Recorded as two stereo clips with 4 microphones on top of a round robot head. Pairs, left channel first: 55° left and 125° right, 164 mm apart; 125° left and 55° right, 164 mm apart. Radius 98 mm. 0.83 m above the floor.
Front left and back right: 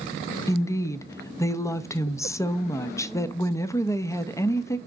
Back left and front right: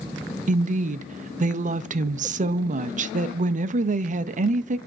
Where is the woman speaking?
15° right, 0.6 m.